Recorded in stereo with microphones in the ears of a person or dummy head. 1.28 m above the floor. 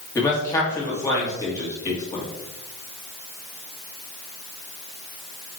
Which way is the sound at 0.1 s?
15° left (ahead or behind).